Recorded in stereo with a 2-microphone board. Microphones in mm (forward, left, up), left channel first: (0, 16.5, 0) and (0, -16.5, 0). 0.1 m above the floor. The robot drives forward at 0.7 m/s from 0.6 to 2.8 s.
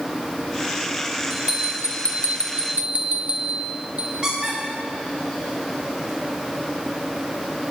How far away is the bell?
About 1.7 m.